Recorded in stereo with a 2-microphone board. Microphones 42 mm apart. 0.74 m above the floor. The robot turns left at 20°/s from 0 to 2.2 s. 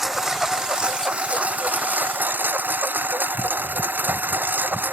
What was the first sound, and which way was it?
A lawn mower, 10° right.